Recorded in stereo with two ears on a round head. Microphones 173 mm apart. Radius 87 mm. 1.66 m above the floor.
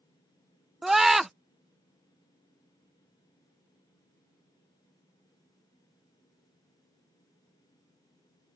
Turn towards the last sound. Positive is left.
turn(degrees=0)  # may be behind; listen again after turning